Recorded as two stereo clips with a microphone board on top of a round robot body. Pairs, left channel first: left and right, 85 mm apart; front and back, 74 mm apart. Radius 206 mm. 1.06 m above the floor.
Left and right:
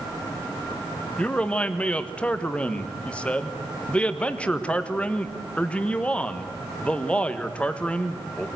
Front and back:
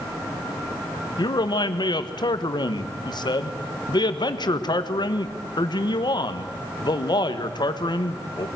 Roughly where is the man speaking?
Ahead.